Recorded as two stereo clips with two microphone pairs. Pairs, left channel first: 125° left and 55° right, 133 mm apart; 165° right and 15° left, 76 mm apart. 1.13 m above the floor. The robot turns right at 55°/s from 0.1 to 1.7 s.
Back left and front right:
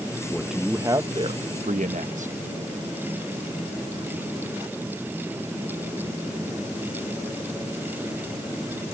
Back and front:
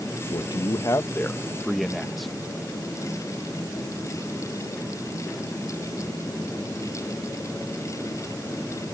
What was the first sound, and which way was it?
A man speaking, 150° right.